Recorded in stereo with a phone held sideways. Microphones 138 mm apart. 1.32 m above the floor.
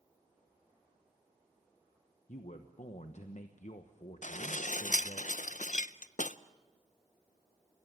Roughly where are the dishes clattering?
Left.